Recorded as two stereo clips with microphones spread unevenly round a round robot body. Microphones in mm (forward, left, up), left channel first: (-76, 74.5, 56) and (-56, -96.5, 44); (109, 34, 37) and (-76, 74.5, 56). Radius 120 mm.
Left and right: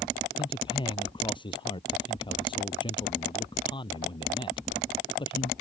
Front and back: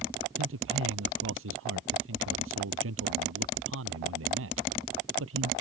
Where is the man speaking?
160° left.